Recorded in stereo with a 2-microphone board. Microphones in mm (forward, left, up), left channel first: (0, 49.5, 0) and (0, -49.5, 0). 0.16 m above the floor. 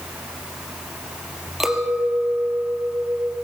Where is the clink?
5° right (ahead or behind), 3 m.